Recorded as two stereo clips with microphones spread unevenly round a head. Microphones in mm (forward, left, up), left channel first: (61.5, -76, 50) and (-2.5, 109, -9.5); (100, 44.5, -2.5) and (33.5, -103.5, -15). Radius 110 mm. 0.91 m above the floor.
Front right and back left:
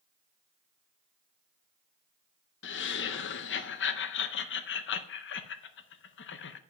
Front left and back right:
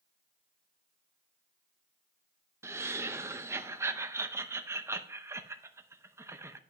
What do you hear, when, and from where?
2.6 s laughter: 50° right, 0.7 m